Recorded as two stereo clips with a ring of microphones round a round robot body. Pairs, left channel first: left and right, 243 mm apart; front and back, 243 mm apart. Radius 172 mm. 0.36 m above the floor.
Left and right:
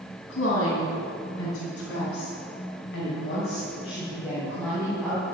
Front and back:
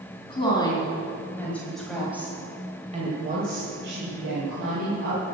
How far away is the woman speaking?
About 3.5 m.